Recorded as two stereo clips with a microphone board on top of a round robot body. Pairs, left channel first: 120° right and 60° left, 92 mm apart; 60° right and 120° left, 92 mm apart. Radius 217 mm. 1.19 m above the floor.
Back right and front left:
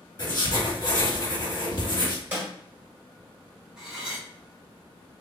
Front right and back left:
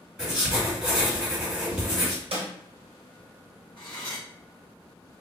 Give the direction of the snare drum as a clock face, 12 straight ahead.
8 o'clock.